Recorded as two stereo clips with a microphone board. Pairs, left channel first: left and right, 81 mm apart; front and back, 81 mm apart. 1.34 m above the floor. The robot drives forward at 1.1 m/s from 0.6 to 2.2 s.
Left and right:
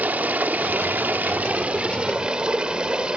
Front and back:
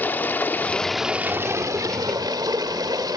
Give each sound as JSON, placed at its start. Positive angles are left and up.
{"t": 0.0, "sound": "running water", "azimuth_deg": -40, "distance_m": 1.0}